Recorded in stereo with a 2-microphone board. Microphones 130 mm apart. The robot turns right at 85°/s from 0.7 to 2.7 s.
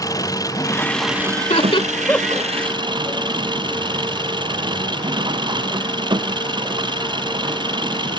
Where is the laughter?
70° left (ahead or behind); by 2.5 s 15° right (ahead or behind).